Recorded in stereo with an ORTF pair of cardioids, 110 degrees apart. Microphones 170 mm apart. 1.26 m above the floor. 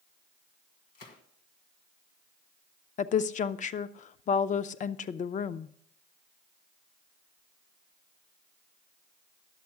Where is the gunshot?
65° left, 1.6 m.